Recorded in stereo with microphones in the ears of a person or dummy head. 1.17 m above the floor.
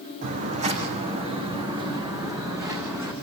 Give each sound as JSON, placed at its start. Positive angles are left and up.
{"t": 0.2, "sound": "footsteps", "side_deg": -45, "distance_m": 3.5}